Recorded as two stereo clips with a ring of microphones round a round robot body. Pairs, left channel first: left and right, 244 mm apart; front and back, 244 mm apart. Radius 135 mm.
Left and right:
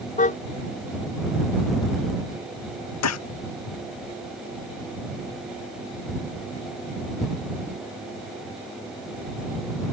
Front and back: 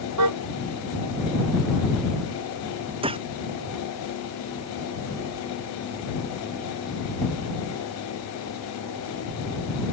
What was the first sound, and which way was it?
A car horn, 150° left.